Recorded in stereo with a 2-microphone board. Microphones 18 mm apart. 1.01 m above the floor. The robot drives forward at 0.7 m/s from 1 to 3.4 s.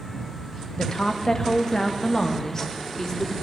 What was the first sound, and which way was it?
A woman speaking, 50° left (ahead or behind).